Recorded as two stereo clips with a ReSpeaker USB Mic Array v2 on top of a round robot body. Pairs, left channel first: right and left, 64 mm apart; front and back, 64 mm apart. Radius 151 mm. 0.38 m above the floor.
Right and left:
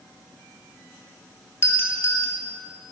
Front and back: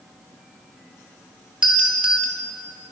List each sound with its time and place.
1.6 s a doorbell: 110° right, 2 m